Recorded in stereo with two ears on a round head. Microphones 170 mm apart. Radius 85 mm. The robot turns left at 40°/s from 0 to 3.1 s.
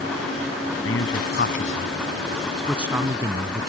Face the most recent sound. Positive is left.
turn(degrees=-20)  # may be behind; listen again after turning